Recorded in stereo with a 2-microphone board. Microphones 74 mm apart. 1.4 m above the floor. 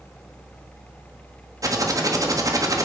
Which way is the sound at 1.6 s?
50° right (ahead or behind).